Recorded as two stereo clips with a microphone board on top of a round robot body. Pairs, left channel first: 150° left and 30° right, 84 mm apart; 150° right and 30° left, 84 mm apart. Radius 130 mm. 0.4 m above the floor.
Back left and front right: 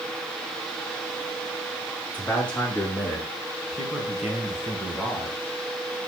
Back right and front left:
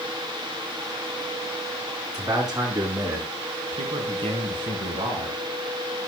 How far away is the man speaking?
About 5.5 m.